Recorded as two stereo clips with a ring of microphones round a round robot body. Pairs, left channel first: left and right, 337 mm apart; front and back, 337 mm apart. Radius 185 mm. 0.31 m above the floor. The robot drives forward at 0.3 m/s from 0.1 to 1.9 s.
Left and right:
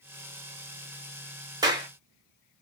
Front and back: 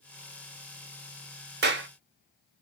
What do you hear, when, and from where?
1.6 s a clap: 160° right, 0.7 m; by 1.9 s 165° right, 0.7 m